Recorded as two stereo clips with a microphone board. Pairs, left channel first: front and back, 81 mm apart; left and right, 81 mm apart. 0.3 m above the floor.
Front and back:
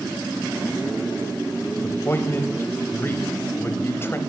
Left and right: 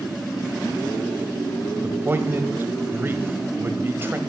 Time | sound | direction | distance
1.8 | a man speaking | 45° right | 1.1 m